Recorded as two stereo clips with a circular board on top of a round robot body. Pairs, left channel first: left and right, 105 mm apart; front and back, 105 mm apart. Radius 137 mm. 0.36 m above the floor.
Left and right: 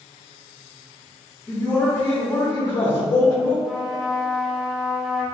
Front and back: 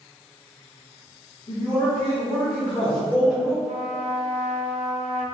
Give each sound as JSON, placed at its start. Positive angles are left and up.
{"t": 1.5, "sound": "a man speaking", "azimuth_deg": 20, "distance_m": 1.3}
{"t": 3.6, "sound": "a trumpet", "azimuth_deg": -175, "distance_m": 0.9}